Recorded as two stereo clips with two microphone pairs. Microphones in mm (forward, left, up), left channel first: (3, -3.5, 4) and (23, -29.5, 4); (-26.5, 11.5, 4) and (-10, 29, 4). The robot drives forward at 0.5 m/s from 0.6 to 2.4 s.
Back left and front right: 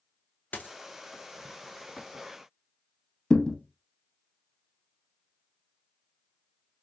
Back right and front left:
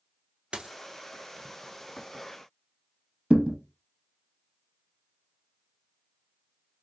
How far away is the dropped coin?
About 0.6 m.